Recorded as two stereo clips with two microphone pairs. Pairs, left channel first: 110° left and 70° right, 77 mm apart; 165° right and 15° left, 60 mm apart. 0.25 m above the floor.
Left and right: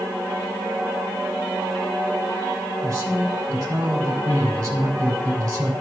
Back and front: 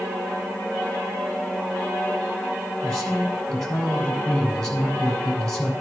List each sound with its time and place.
2.8 s a woman speaking: 80° right, 2.5 m